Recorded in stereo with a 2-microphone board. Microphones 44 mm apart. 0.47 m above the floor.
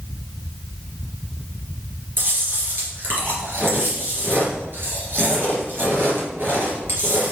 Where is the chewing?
50° right (ahead or behind), 3 m.